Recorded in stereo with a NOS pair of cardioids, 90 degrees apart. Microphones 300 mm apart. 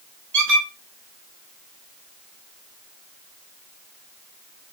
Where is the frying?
No frying in this recording.